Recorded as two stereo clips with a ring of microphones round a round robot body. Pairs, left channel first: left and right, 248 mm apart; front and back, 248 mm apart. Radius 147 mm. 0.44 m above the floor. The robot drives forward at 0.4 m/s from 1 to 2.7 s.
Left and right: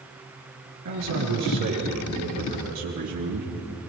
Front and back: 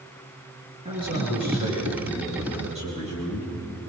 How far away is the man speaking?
About 9.5 m.